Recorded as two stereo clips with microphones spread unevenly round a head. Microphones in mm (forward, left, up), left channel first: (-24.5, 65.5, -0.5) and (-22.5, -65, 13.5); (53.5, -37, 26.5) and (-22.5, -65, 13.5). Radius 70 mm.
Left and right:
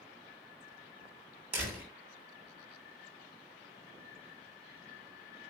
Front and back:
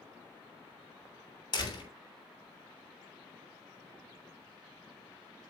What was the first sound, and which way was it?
A door slam, 10° right.